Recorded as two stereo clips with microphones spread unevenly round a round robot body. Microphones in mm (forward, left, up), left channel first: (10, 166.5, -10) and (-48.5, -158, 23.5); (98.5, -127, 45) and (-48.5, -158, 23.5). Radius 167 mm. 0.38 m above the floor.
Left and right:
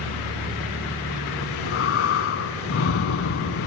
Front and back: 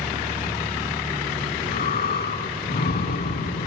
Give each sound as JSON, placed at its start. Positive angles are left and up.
{"t": 1.4, "sound": "breathing", "azimuth_deg": 25, "distance_m": 0.6}